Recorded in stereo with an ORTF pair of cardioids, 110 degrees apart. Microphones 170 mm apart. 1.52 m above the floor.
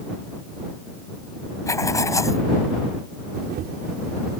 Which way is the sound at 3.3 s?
70° right.